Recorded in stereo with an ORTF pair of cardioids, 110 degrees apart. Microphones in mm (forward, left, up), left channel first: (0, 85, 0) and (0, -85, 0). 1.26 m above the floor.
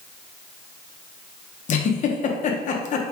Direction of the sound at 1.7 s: 45° left.